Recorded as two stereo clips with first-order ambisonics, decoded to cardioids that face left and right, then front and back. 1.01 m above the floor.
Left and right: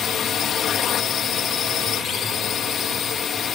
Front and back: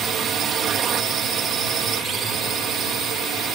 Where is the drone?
135° left.